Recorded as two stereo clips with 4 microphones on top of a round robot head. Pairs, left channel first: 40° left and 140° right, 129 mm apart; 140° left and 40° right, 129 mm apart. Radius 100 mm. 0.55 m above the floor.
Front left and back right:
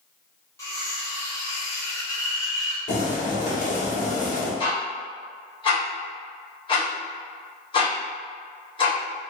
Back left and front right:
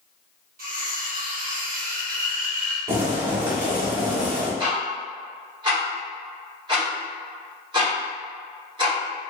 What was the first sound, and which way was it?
Cutlery clinking, 30° right.